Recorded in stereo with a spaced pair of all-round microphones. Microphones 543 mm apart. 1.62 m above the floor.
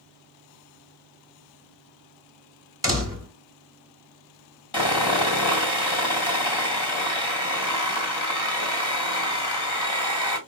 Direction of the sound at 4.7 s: 45° left (ahead or behind).